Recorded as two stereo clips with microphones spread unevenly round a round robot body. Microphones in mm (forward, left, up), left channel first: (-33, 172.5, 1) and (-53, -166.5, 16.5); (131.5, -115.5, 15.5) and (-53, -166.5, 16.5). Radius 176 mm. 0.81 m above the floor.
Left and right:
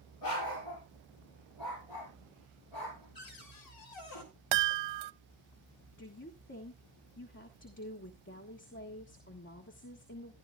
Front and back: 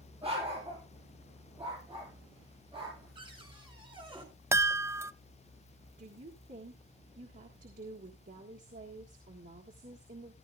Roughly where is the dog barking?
Behind left.